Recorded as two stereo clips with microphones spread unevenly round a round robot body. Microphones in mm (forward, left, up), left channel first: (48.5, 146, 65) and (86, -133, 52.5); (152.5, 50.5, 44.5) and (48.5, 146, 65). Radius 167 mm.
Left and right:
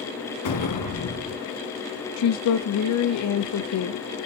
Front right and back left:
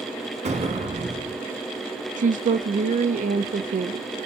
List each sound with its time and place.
0.5 s an explosion: 110° left, 2.5 m
2.2 s a woman speaking: 115° left, 0.8 m